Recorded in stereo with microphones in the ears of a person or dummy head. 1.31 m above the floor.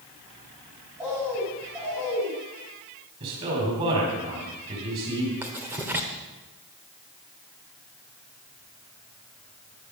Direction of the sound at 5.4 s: 10° right (ahead or behind).